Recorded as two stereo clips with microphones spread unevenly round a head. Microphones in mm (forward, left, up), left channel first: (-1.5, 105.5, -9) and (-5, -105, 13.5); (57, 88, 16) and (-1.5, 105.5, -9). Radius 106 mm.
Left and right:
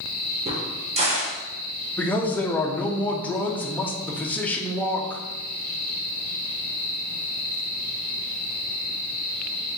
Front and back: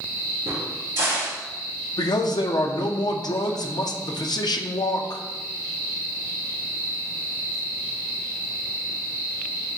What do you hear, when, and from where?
0.5 s a crack: 155° right, 0.9 m
2.0 s a man speaking: 10° left, 0.6 m